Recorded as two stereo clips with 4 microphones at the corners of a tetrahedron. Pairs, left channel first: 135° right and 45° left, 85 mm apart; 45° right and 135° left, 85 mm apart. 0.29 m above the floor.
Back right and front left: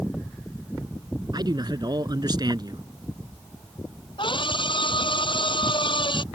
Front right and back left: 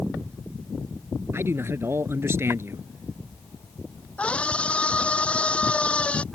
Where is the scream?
120° right.